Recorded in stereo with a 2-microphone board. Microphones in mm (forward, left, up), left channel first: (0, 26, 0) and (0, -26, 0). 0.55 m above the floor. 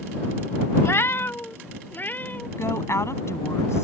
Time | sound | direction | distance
0.8 | a cat meowing | 55° left (ahead or behind) | ?
2.6 | a woman speaking | 65° left (ahead or behind) | ?